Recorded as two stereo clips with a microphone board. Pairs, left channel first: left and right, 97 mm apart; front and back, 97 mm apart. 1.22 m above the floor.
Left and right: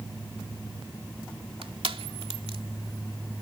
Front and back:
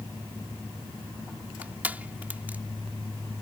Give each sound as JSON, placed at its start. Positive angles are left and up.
{"t": 1.6, "sound": "crushing", "azimuth_deg": -105}